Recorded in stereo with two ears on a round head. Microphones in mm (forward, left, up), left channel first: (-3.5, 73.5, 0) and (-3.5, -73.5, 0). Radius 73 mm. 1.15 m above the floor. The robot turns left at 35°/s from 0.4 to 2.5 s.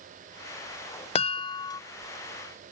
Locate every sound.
1.1 s a chime: 35° left (ahead or behind); by 1.8 s 20° left (ahead or behind)